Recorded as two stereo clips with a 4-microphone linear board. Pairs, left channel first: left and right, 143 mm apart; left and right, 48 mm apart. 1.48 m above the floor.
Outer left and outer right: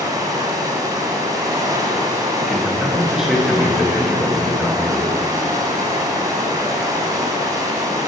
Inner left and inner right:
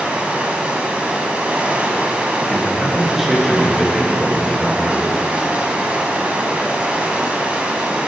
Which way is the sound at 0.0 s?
25° right (ahead or behind).